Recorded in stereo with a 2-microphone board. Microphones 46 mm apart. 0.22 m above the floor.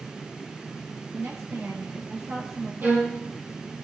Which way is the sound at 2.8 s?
45° right (ahead or behind).